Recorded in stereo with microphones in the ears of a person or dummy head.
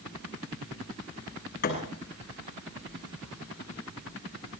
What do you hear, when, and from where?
1.6 s a thud: 50° left (ahead or behind), 6 m